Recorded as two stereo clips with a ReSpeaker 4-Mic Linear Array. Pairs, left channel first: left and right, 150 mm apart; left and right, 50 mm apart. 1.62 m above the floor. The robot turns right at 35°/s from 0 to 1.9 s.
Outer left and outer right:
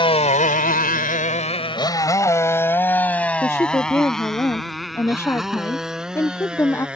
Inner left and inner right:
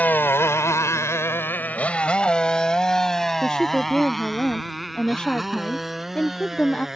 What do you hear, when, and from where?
0.0 s a motorcycle: 35° left (ahead or behind); by 7.0 s 5° right (ahead or behind)
3.4 s a woman speaking: 15° left (ahead or behind)